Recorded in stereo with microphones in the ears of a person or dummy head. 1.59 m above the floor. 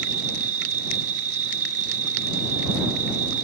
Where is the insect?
45° right (ahead or behind).